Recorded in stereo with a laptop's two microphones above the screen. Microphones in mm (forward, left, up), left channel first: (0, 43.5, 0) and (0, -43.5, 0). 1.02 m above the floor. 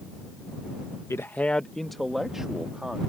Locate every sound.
1.1 s a man speaking: 30° left (ahead or behind); by 3.0 s 10° right (ahead or behind)